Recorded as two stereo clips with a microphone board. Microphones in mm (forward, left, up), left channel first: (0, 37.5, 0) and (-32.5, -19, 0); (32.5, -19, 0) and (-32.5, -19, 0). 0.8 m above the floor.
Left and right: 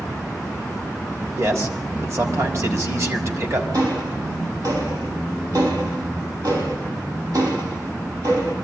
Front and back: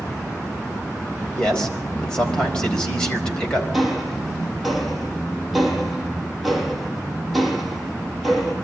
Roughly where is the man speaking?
Right.